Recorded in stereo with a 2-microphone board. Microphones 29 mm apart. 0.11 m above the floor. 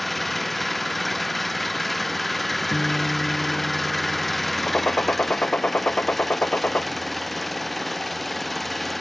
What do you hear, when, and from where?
0.0 s an engine running: 5° left (ahead or behind)
2.7 s a guitar: 80° left
4.7 s a gunshot: 60° left (ahead or behind)